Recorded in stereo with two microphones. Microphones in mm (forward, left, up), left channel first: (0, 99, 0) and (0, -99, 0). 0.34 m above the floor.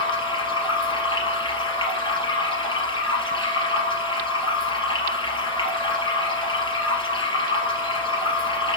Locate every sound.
0.0 s running water: 25° left (ahead or behind), 4 m